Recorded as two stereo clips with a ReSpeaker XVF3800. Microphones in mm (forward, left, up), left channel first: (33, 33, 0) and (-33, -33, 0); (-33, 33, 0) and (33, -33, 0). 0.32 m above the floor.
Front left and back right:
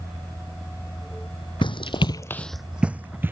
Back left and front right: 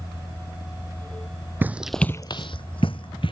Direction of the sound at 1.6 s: 25° left.